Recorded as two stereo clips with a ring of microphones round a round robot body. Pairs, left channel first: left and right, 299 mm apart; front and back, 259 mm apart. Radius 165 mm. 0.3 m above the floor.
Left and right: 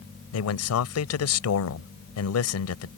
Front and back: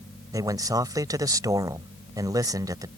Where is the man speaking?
105° left.